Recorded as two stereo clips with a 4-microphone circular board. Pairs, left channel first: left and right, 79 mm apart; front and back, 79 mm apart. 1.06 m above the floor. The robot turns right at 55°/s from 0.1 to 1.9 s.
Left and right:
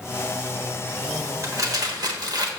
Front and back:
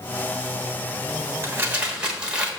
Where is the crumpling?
130° right, 1.2 m; by 2.5 s 100° right, 1.2 m.